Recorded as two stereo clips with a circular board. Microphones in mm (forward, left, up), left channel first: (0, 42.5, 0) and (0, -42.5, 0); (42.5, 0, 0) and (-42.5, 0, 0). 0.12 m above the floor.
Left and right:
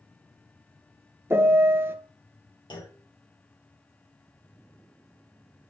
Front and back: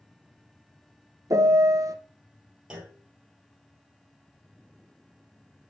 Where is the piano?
145° right, 0.6 m.